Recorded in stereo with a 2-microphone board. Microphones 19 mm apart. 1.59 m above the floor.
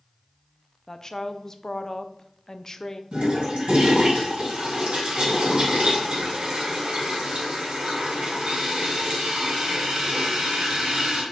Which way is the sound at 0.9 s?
30° left (ahead or behind).